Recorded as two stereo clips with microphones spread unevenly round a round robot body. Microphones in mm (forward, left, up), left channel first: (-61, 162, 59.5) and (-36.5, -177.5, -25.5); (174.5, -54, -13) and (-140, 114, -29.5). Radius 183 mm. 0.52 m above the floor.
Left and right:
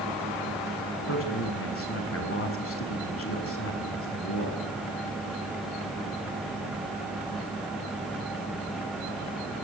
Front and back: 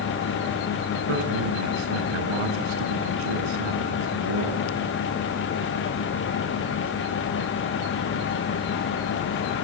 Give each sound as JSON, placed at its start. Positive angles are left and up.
{"t": 1.1, "sound": "a man speaking", "azimuth_deg": 150, "distance_m": 6.5}